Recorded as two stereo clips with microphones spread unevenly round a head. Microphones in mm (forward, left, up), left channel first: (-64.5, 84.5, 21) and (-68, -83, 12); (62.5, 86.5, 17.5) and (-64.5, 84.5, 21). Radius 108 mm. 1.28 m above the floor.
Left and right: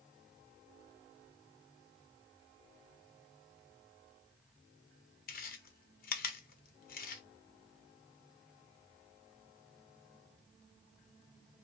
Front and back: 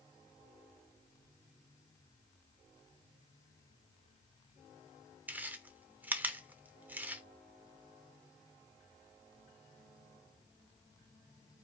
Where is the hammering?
I don't hear hammering.